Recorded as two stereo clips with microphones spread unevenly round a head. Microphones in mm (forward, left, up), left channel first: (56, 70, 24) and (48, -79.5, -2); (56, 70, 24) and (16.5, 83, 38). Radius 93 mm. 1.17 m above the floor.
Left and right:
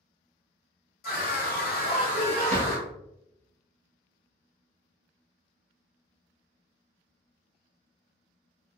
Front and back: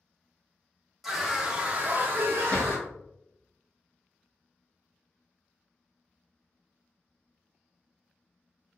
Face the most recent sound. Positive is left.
turn(degrees=-60)